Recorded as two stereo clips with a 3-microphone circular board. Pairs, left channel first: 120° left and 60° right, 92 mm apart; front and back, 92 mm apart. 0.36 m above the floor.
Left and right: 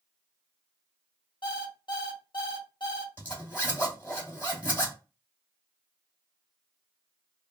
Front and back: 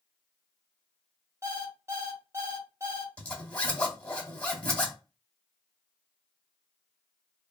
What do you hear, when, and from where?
1.4 s an alarm clock: 130° left, 1.1 m
3.2 s a zipper: 55° left, 1.4 m